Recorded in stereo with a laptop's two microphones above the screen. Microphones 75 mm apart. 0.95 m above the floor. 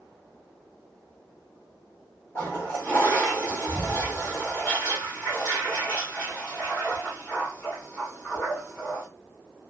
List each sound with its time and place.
2.4 s a toilet flushing: 30° left (ahead or behind), 1.2 m